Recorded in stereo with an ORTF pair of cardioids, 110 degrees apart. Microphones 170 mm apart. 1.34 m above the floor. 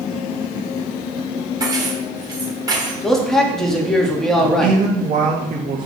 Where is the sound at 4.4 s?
50° right, 2.5 m.